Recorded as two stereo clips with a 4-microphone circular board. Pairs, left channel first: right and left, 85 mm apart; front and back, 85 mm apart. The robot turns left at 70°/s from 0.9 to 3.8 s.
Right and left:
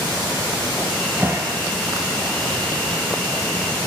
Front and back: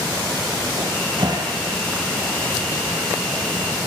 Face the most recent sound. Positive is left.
turn(degrees=-25)